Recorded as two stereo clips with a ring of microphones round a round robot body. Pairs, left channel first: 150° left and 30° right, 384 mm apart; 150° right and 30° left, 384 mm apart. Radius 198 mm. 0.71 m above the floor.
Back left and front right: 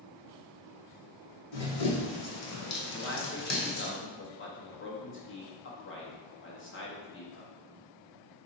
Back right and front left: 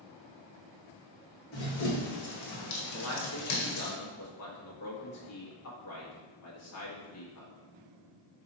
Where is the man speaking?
170° right, 1.4 m.